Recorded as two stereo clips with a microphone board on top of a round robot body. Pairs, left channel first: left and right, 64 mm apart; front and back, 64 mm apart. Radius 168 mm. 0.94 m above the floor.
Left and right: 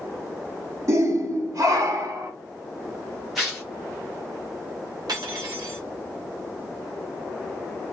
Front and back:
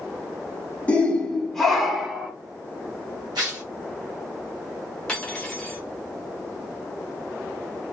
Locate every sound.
0.9 s a shout: 65° right, 1.3 m; by 2.3 s 100° right, 1.6 m
3.4 s tearing paper: straight behind, 0.5 m
5.1 s cutlery clinking: 75° right, 0.6 m